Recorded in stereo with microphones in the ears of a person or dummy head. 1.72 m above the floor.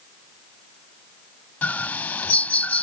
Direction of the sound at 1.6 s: 10° left (ahead or behind).